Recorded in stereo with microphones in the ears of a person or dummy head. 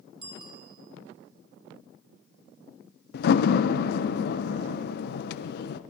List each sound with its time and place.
0.2 s a bicycle bell: 30° right (ahead or behind), 2.5 m
3.1 s a door slam: 60° left (ahead or behind), 0.8 m